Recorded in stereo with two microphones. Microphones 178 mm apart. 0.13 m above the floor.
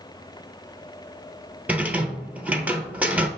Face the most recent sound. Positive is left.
turn(degrees=-10)  # may be behind; listen again after turning